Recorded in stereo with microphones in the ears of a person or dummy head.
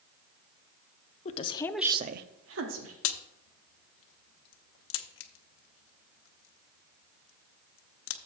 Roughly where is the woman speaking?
Left.